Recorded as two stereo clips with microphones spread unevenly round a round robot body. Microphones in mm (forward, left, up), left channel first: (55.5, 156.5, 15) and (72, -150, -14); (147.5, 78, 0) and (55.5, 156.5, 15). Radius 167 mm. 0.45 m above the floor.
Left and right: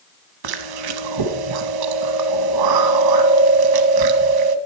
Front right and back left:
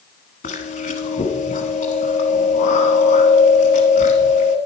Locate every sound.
0.4 s chewing: 85° right, 0.8 m